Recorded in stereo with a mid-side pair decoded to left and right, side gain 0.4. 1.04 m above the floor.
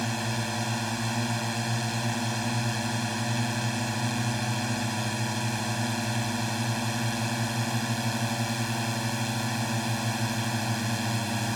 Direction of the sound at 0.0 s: 5° left.